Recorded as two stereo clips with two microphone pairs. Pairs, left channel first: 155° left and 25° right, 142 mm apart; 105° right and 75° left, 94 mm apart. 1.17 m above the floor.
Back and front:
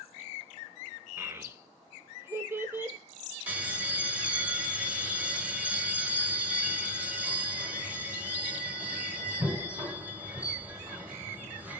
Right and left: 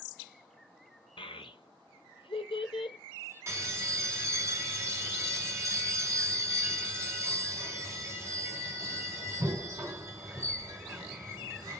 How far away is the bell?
About 1.0 m.